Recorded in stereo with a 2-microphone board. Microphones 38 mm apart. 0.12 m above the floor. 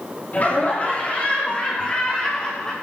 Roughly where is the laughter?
Left.